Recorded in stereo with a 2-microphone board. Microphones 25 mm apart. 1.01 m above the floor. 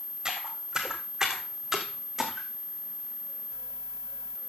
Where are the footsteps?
30° right (ahead or behind), 3 m; by 2.5 s 5° right (ahead or behind), 4 m.